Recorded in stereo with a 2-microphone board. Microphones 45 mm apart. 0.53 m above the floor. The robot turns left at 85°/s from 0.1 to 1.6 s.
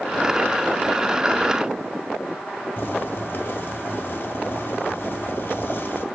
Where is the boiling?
45° left (ahead or behind), 2.5 m.